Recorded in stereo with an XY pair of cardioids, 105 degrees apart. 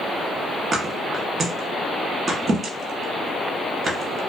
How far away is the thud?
About 1.0 m.